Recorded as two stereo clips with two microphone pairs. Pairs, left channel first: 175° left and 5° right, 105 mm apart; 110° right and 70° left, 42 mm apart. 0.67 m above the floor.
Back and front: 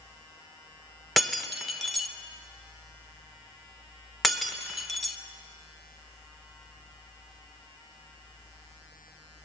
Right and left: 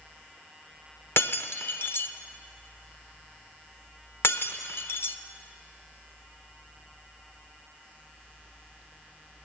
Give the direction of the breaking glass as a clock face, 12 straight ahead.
3 o'clock.